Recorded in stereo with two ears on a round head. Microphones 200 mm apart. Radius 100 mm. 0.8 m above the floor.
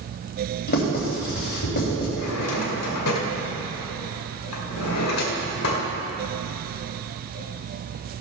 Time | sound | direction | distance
0.7 | writing | 50° left (ahead or behind) | 3.5 m
2.2 | a drawer | 80° left | 1.7 m